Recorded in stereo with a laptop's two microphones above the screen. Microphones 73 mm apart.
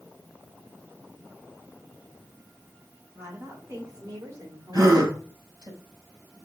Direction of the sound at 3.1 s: 35° right (ahead or behind).